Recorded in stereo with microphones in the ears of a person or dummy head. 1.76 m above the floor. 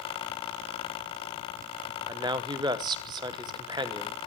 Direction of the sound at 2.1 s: 25° right (ahead or behind).